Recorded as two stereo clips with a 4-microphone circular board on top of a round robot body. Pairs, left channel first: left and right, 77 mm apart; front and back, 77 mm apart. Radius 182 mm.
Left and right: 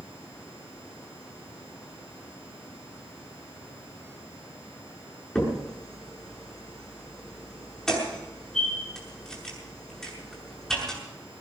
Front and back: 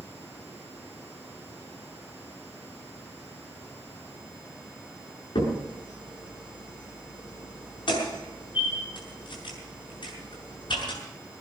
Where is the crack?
5° left, 7 m.